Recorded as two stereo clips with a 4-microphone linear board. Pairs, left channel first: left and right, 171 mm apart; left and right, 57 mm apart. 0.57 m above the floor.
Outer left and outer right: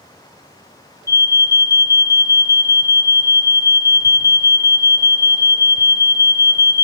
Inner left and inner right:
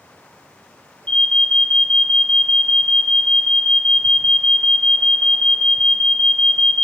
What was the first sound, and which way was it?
An alarm, 20° left (ahead or behind).